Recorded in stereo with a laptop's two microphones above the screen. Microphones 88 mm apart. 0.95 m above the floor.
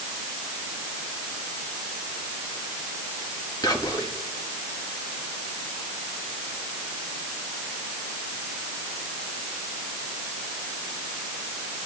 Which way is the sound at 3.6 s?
45° left (ahead or behind).